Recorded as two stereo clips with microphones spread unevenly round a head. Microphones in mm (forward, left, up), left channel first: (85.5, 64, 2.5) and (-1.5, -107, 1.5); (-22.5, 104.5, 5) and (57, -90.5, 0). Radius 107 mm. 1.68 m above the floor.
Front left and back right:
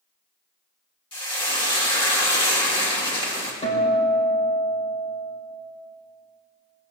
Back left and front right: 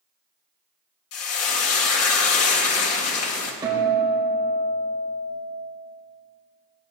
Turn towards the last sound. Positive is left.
turn(degrees=5)